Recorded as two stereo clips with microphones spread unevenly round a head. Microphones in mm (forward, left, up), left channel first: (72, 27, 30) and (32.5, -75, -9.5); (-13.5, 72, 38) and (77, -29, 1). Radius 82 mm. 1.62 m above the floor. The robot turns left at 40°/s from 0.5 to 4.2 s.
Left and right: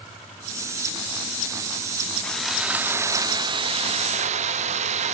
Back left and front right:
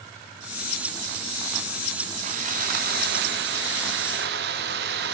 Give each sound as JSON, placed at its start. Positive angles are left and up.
{"t": 2.2, "sound": "sawing", "azimuth_deg": -5, "distance_m": 0.5}